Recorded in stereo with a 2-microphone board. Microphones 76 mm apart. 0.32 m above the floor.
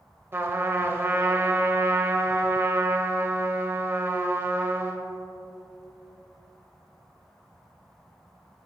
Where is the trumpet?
30° right (ahead or behind), 0.7 m.